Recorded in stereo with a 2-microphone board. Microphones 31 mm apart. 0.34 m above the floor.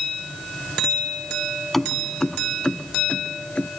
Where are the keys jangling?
5° left (ahead or behind); by 3.7 s 40° left (ahead or behind).